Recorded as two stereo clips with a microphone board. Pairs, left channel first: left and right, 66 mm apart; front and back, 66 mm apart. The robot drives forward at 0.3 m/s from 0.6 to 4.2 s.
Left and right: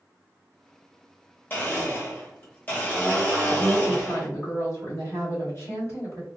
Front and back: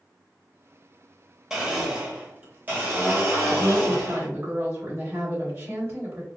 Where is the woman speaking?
125° left, 1.4 m; by 6.3 s 135° left, 1.5 m.